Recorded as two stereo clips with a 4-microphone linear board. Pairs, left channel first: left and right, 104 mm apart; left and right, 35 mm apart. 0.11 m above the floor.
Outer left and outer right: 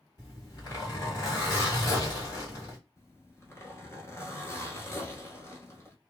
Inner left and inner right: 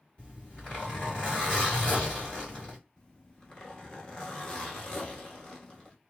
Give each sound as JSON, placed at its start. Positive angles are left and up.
{"t": 0.2, "sound": "a zipper", "side_deg": 35, "distance_m": 2.0}
{"t": 3.0, "sound": "a zipper", "side_deg": 25, "distance_m": 1.0}